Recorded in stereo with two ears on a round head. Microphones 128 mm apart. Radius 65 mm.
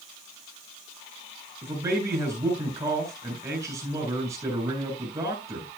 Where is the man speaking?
20° right (ahead or behind), 8.5 m.